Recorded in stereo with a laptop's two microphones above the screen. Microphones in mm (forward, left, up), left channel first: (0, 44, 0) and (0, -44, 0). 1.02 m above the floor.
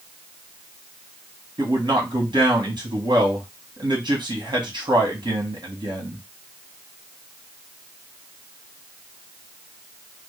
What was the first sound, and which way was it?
A man speaking, 55° right (ahead or behind).